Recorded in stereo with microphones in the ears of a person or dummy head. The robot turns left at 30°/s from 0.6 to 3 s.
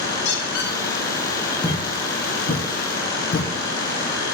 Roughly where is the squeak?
Left.